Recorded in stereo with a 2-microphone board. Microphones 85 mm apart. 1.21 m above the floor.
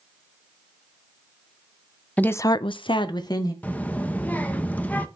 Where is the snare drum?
No snare drum in this recording.